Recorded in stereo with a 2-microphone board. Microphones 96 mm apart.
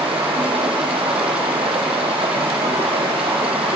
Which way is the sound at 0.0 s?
80° right.